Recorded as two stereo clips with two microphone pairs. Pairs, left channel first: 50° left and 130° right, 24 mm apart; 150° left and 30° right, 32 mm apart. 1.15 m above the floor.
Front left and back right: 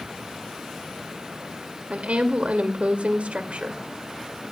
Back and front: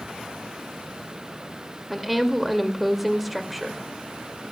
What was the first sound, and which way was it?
A woman speaking, 115° right.